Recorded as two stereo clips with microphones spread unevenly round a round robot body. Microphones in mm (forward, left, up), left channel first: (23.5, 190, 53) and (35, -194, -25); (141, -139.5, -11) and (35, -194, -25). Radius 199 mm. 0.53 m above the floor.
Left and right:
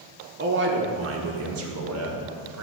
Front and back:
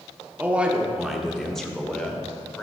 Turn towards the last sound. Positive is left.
turn(degrees=-55)